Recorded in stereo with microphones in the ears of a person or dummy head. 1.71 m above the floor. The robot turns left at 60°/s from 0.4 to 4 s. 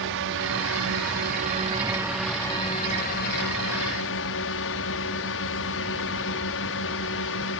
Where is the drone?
70° right; by 7.6 s 75° left.